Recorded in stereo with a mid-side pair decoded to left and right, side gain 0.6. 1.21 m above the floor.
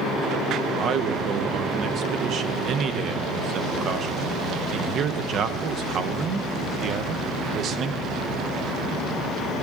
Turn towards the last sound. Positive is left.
turn(degrees=-50)